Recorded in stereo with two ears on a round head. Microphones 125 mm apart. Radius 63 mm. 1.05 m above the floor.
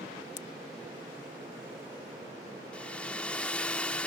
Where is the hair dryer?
10° left (ahead or behind).